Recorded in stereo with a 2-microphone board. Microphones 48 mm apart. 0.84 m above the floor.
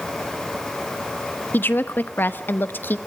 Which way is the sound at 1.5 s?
45° left (ahead or behind).